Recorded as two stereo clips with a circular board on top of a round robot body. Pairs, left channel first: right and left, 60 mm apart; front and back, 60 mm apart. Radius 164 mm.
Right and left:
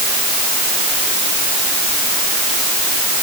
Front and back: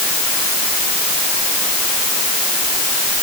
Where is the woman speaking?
No woman speaking in this recording.